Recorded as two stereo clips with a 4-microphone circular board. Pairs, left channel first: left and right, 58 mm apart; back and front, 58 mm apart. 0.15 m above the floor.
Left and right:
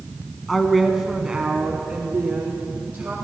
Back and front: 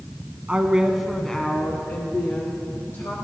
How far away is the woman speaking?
About 1.2 m.